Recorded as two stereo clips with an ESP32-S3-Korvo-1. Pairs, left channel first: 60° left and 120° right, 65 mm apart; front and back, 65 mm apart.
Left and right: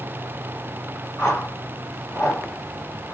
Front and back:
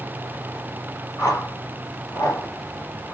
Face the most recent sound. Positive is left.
turn(degrees=-10)